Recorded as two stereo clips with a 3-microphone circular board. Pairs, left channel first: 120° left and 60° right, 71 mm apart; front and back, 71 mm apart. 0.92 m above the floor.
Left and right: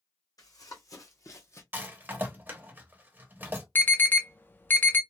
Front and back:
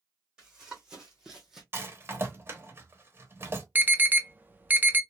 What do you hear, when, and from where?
0.4 s running footsteps: 100° left, 1.9 m; by 1.6 s 95° left, 1.3 m
1.7 s a rattle: 125° right, 0.9 m
3.8 s an alarm: 150° left, 0.5 m